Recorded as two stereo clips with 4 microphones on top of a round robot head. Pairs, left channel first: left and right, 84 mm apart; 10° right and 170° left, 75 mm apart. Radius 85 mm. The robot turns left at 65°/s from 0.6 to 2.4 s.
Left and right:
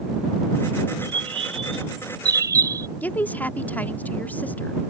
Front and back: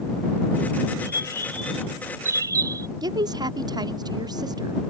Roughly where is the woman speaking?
Behind.